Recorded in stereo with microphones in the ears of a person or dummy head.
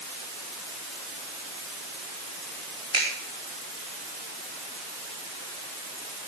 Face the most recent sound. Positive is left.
turn(degrees=-25)  # may be behind; listen again after turning